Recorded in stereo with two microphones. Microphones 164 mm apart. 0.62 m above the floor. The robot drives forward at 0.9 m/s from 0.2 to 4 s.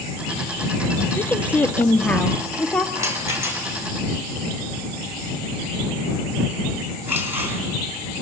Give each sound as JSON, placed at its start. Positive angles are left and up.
{"t": 1.2, "sound": "a woman speaking", "side_deg": 10, "distance_m": 0.8}
{"t": 3.0, "sound": "a rattle", "side_deg": -15, "distance_m": 3.0}